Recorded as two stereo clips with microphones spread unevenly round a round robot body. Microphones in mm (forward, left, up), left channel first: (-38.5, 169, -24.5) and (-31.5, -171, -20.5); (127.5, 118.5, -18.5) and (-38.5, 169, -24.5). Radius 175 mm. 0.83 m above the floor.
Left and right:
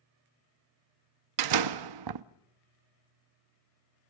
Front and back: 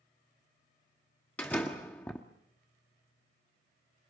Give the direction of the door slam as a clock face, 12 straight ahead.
3 o'clock.